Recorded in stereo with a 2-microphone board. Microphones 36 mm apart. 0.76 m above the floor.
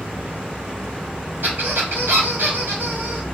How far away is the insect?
About 1.2 m.